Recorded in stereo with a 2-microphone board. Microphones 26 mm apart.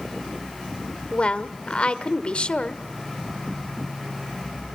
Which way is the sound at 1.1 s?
40° left (ahead or behind).